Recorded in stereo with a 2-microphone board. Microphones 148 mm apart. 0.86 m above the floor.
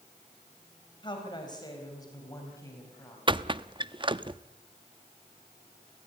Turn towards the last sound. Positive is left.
turn(degrees=-30)  # may be behind; listen again after turning